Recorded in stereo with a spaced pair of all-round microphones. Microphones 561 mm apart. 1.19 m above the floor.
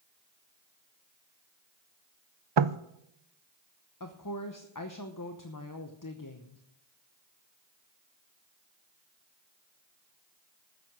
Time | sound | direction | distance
2.6 | knocking | 50° right (ahead or behind) | 0.5 m
4.0 | a woman speaking | 35° left (ahead or behind) | 0.9 m